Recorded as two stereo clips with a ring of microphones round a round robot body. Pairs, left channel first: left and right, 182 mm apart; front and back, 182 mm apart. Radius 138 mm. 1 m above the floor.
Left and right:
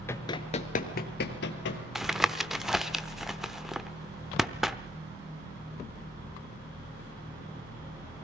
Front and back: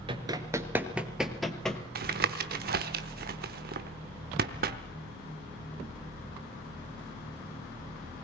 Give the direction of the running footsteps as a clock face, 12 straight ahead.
7 o'clock.